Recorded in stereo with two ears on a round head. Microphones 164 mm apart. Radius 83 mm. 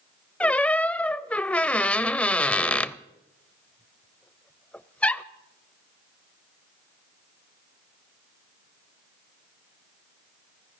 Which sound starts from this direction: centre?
A squeak, at 0.4 s.